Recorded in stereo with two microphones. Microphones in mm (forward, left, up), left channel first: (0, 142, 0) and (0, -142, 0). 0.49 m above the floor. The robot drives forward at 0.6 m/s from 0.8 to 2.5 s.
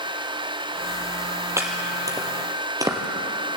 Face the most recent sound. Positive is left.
turn(degrees=-15)  # may be behind; listen again after turning